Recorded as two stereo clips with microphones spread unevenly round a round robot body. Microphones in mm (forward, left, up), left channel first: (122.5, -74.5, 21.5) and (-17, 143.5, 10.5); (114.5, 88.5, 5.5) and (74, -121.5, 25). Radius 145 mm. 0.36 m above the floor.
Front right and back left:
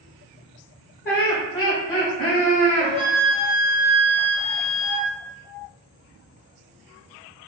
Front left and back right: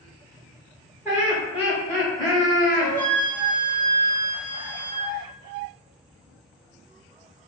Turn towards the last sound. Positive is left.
turn(degrees=-60)